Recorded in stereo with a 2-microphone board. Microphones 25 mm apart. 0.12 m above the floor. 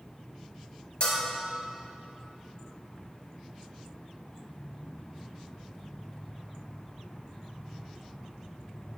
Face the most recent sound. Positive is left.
turn(degrees=40)  # may be behind; listen again after turning